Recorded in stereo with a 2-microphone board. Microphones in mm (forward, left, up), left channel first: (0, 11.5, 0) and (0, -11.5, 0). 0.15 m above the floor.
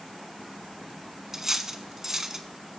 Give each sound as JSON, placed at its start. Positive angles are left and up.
{"t": 1.3, "sound": "cutlery clinking", "side_deg": -20, "distance_m": 0.6}